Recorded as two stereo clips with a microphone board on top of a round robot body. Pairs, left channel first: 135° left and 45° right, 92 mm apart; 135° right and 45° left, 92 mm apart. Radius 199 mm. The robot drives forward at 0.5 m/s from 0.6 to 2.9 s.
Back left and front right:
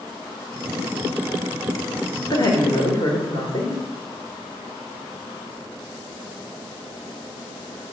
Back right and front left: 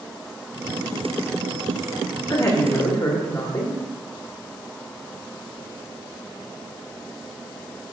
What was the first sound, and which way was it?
A woman speaking, 175° left.